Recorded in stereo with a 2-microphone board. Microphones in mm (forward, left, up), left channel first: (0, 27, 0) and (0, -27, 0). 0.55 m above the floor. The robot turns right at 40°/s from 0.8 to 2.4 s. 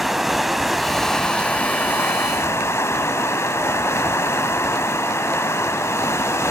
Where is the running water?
5° right, 0.7 m; by 6.5 s 60° left, 0.7 m.